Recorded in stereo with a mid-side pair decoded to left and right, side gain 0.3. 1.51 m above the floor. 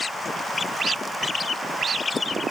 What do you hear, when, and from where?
Only background noise.